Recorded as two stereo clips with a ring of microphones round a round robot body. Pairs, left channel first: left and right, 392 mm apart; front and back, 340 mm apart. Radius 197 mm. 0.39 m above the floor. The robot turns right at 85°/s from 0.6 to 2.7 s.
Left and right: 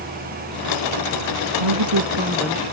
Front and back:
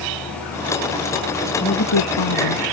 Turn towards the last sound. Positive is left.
turn(degrees=20)